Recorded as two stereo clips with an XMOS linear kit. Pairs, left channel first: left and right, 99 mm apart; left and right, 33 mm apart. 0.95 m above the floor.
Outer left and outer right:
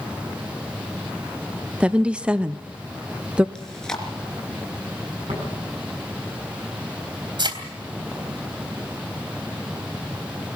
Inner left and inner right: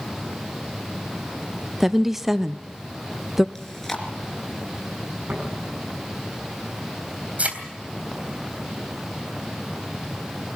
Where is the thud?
50° right (ahead or behind), 3 m.